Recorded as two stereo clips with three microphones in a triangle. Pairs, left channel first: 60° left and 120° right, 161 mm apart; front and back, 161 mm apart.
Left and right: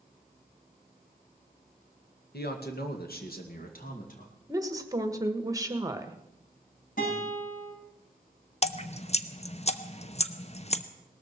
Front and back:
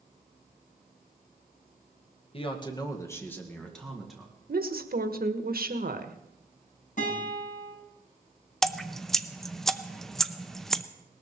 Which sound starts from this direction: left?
Dripping, at 8.6 s.